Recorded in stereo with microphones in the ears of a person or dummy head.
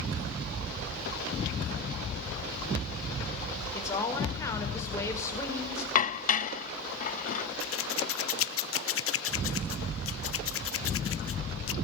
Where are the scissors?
60° left (ahead or behind), 0.9 m.